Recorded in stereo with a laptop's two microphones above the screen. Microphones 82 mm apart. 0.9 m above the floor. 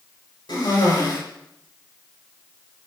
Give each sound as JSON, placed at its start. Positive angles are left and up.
{"t": 0.5, "sound": "a cough", "side_deg": 65, "distance_m": 4.5}